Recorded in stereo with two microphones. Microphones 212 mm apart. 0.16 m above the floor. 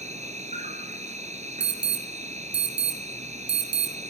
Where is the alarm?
60° right (ahead or behind), 4.5 m.